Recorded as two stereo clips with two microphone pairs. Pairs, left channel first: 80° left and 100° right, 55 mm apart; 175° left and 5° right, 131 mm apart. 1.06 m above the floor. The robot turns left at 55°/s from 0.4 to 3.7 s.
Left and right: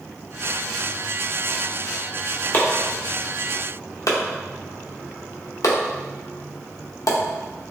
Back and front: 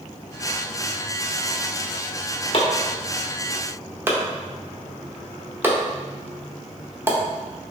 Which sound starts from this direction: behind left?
Chopping, at 2.5 s.